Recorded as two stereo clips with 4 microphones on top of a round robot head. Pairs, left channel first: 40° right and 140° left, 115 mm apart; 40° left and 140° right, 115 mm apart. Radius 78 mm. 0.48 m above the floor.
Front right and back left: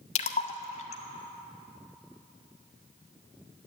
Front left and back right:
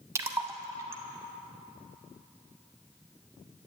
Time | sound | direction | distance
0.1 | a splash | 70° right | 0.6 m